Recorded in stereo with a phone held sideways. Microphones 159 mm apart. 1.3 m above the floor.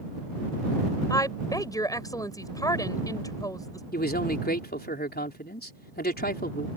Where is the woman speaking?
20° left (ahead or behind).